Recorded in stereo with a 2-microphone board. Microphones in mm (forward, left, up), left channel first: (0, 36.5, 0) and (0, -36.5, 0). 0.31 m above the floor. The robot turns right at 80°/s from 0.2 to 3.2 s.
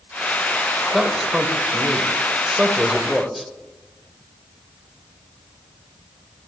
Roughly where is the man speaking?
Centre.